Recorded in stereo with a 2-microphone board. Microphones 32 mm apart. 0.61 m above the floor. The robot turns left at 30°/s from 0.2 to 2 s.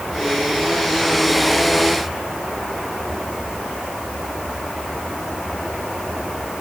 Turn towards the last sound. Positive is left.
No sound to turn to.